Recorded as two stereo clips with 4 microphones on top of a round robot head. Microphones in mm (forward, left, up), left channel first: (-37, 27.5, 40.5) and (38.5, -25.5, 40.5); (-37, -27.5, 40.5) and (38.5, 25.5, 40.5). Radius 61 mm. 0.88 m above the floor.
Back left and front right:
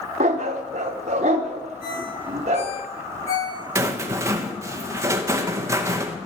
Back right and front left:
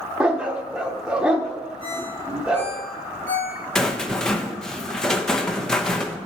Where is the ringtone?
140° left, 6.5 m.